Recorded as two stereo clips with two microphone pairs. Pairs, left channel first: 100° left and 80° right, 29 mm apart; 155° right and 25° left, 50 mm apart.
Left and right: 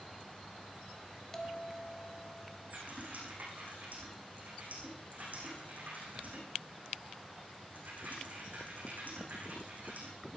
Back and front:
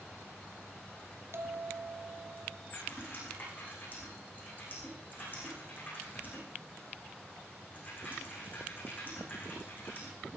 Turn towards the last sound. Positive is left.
turn(degrees=-105)